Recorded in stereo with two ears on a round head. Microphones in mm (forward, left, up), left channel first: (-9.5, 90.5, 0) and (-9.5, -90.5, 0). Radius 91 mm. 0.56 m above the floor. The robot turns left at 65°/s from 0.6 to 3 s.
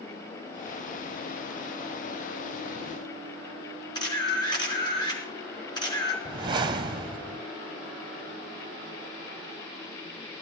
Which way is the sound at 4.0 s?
20° left (ahead or behind).